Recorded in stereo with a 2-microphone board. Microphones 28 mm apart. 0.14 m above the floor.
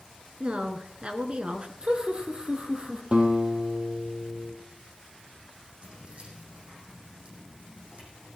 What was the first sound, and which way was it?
A woman speaking, 40° right (ahead or behind).